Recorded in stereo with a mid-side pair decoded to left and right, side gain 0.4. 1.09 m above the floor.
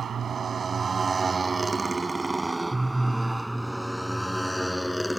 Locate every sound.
0.0 s a motorcycle: 55° right; by 5.2 s 10° left